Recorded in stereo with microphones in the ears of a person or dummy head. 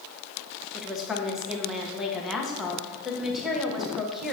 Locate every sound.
0.7 s a woman speaking: centre (ahead or behind), 1.1 m